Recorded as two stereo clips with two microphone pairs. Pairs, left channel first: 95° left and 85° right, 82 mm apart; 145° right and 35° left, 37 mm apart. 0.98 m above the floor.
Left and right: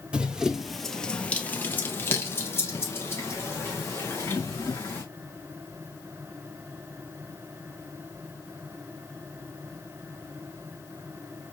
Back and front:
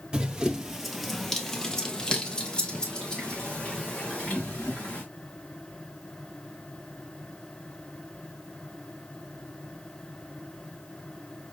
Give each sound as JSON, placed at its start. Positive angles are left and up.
{"t": 0.1, "sound": "running footsteps", "azimuth_deg": -20, "distance_m": 1.1}